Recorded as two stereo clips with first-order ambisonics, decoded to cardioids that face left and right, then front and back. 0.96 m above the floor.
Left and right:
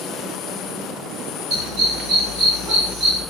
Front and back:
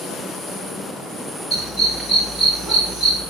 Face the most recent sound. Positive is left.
turn(degrees=-65)